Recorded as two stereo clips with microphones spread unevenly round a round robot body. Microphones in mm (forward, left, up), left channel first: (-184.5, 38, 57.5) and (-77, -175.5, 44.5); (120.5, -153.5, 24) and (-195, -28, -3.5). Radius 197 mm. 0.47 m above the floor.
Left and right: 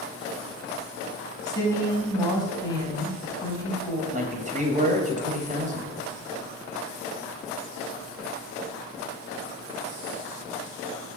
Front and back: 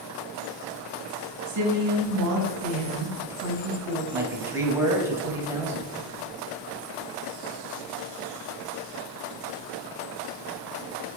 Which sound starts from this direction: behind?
A woman speaking, at 1.5 s.